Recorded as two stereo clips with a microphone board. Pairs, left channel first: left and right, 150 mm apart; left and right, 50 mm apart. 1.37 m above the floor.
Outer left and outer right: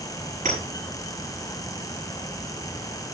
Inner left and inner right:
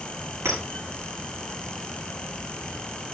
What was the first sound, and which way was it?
A clink, 60° right (ahead or behind).